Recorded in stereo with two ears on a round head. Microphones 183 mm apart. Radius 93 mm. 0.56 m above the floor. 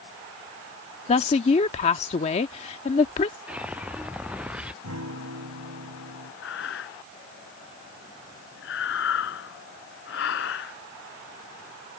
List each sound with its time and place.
1.1 s a woman speaking: 30° left (ahead or behind)
3.5 s a whoosh: 5° right (ahead or behind)
4.8 s a guitar: 85° right
6.4 s breathing: 60° left (ahead or behind)